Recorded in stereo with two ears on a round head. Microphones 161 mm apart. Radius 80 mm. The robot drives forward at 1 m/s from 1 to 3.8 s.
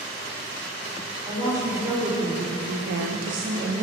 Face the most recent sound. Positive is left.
turn(degrees=-35)  # may be behind; listen again after turning